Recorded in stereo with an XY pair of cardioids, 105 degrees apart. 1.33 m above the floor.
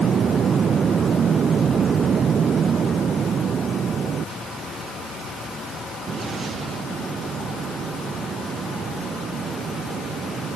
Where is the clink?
No clink in this recording.